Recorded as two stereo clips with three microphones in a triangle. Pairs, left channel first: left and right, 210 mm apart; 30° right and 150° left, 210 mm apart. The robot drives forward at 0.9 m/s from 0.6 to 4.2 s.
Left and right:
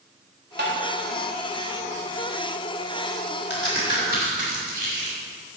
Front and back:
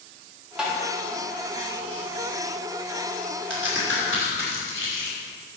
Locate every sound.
0.6 s tapping: 125° right, 3 m
3.5 s a crack: 125° left, 4 m; by 5.2 s 130° left, 4.5 m